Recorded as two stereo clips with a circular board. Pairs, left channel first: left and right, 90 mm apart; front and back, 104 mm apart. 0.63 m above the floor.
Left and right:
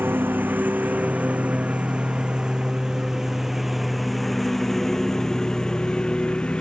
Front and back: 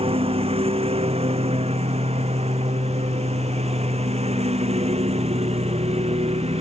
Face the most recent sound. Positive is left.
turn(degrees=165)